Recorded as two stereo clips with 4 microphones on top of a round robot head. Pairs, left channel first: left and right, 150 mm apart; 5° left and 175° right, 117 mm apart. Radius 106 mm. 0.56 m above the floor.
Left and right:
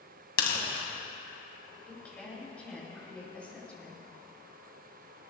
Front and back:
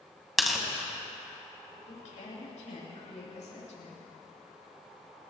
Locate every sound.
0.4 s tearing paper: 95° left, 2.5 m
1.9 s a woman speaking: 10° left, 5 m